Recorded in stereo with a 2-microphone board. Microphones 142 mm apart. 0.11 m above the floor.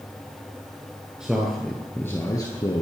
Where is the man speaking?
5° right (ahead or behind), 2 m; by 2.8 s 35° left (ahead or behind), 1.8 m.